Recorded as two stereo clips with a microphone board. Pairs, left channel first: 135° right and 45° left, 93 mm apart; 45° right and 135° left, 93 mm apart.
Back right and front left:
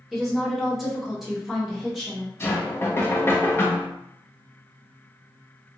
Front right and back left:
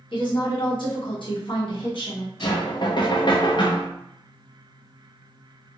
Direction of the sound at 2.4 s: 75° right.